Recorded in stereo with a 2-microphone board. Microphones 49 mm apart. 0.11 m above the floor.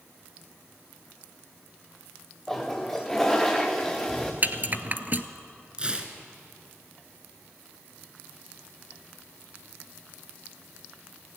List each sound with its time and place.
2.5 s a toilet flushing: 10° left (ahead or behind), 2.5 m
4.4 s a rattle: 40° right (ahead or behind), 0.8 m
5.8 s tearing paper: 20° right (ahead or behind), 1.5 m